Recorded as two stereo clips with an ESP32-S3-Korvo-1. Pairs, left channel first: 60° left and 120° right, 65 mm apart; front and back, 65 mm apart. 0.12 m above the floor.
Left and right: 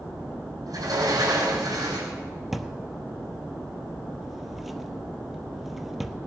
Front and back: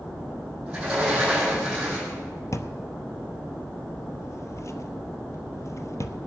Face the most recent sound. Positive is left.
turn(degrees=-35)